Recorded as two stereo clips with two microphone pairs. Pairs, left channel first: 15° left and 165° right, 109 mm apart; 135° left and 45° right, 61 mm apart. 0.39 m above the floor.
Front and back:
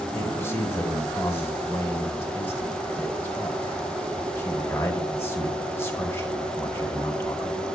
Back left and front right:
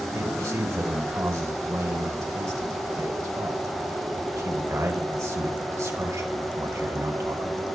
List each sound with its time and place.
0.1 s a man speaking: 50° right, 3 m